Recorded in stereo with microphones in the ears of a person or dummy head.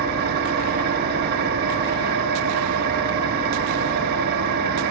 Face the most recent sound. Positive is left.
turn(degrees=-50)  # may be behind; listen again after turning